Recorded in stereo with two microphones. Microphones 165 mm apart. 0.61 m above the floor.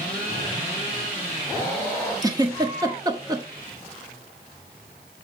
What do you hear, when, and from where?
2.2 s a giggle: 25° right (ahead or behind), 1.3 m